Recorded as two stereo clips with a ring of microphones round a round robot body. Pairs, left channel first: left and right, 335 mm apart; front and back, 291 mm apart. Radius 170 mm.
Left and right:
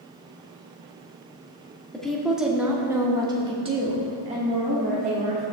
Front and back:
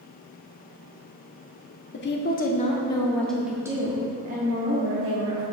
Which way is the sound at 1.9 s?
5° left.